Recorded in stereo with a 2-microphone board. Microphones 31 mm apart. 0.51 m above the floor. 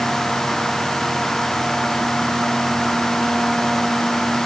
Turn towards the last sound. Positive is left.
No sound to turn to.